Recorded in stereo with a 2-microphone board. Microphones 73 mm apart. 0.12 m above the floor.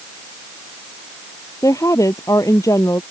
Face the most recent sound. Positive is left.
turn(degrees=50)  # may be behind; listen again after turning